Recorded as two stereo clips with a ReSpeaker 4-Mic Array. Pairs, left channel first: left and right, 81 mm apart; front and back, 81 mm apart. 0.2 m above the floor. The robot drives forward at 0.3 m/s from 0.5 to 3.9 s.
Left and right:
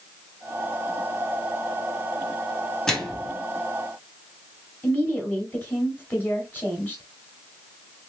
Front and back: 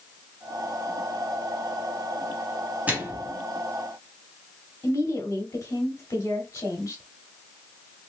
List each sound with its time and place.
2.9 s a microwave: 160° left, 0.9 m; by 3.4 s 165° left, 1.0 m
4.8 s a woman speaking: 35° left, 1.3 m